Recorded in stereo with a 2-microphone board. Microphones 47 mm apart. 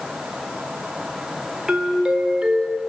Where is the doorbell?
15° right (ahead or behind), 1.3 m.